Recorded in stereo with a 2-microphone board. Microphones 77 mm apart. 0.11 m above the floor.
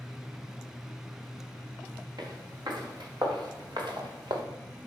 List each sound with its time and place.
2.2 s footsteps: 70° right (ahead or behind), 5 m; by 4.4 s 85° right, 1.9 m